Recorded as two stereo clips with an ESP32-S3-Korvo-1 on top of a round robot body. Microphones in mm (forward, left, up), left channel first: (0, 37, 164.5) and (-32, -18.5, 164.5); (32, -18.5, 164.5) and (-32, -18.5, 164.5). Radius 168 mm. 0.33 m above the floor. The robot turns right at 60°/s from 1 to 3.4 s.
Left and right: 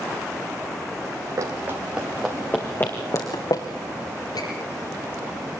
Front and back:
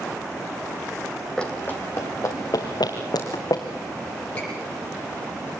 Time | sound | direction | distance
1.4 | running footsteps | 75° right | 1.6 m
4.3 | a squeak | 70° left | 6 m